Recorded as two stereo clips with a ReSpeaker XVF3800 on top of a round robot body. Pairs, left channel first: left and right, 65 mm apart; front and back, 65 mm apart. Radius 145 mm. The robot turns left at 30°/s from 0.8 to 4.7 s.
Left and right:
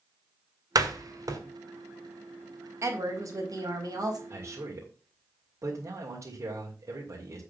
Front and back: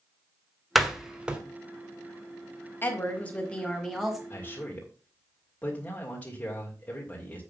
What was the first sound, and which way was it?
A door slam, 95° right.